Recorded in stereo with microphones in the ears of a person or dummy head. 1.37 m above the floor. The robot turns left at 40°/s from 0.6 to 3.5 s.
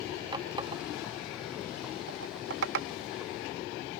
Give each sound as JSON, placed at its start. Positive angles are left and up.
{"t": 0.3, "sound": "a running tap", "side_deg": -25}